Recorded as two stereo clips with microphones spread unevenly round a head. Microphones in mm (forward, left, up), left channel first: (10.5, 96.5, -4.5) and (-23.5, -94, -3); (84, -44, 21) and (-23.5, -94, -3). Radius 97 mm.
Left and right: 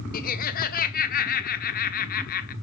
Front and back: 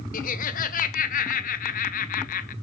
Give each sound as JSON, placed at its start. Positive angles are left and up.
{"t": 0.1, "sound": "laughter", "azimuth_deg": 30, "distance_m": 0.9}